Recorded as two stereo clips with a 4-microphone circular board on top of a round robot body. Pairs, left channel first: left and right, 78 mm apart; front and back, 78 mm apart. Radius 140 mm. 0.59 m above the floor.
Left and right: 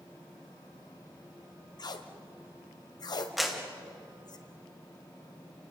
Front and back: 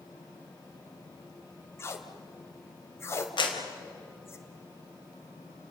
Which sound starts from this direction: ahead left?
Tape being pulled, at 1.8 s.